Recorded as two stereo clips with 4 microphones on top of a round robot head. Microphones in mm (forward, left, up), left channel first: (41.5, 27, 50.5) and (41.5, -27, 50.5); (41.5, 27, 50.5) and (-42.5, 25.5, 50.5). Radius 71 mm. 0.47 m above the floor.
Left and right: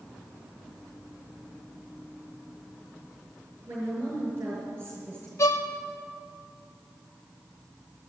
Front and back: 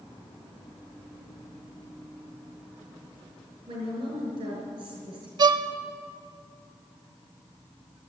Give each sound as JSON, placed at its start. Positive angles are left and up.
{"t": 3.7, "sound": "a woman speaking", "azimuth_deg": -150, "distance_m": 7.0}
{"t": 5.4, "sound": "a violin", "azimuth_deg": 140, "distance_m": 0.6}